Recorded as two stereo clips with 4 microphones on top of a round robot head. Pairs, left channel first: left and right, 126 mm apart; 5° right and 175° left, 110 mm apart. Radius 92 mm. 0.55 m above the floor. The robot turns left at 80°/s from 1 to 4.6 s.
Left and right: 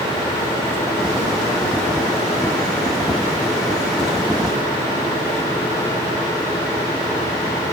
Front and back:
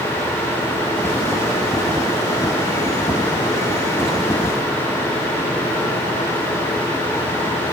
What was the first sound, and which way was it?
Only background noise.